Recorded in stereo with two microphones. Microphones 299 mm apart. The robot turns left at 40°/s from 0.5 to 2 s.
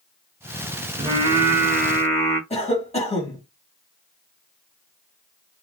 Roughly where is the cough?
Left.